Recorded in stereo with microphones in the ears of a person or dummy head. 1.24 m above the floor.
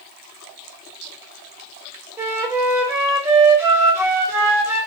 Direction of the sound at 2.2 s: 10° right (ahead or behind).